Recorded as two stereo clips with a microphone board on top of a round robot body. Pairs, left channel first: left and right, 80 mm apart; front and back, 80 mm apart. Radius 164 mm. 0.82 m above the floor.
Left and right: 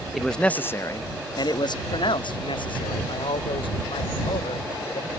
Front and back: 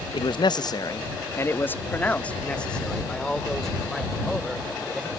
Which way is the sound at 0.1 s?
Straight ahead.